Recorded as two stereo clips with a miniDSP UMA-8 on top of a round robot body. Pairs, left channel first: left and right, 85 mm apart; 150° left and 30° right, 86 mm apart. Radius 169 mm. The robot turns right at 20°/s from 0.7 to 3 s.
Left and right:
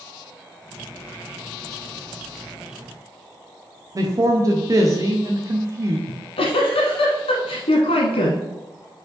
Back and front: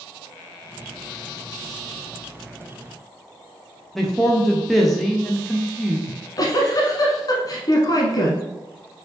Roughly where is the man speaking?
Behind right.